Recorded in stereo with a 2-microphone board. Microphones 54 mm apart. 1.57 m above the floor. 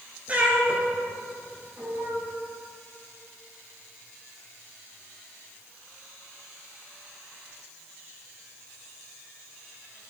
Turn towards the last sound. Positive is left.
turn(degrees=-55)  # may be behind; listen again after turning